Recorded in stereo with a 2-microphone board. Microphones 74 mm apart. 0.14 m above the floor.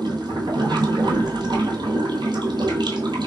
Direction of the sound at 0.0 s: 80° right.